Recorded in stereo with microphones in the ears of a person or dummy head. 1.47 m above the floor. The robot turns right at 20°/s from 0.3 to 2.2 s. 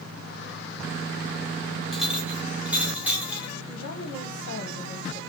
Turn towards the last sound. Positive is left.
turn(degrees=70)  # may be behind; listen again after turning